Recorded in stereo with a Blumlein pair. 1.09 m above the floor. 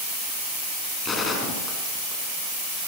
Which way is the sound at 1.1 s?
20° left.